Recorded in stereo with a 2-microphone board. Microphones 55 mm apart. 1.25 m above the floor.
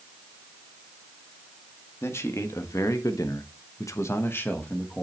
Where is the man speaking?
50° left (ahead or behind), 1.8 m; by 5.0 s 20° left (ahead or behind), 1.5 m.